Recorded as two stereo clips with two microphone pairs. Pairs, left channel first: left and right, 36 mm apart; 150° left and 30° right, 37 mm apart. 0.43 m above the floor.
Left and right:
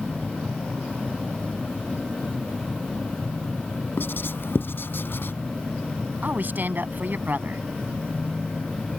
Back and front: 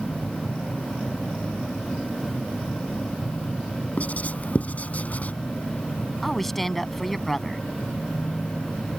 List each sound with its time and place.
4.0 s writing: 105° left
6.2 s a woman speaking: 125° right